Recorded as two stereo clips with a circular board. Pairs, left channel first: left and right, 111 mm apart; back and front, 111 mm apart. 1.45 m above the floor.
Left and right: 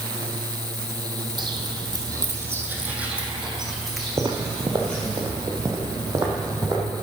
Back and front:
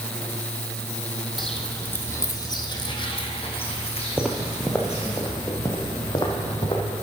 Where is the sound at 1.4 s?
90° right, 1.9 m; by 5.2 s 170° left, 4 m.